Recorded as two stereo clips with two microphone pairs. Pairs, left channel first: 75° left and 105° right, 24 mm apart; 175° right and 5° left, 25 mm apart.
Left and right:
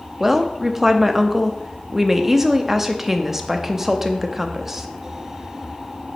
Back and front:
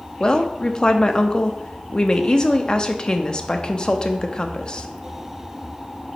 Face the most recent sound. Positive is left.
turn(degrees=-165)